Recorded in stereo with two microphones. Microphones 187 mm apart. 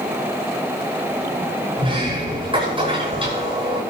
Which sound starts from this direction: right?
A sliding door, at 1.8 s.